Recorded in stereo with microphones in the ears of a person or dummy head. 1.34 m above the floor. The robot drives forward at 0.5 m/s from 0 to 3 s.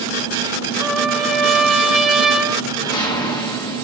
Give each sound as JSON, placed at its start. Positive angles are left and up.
{"t": 0.8, "sound": "a trumpet", "side_deg": 0, "distance_m": 0.7}
{"t": 2.7, "sound": "a whoosh", "side_deg": 30, "distance_m": 1.0}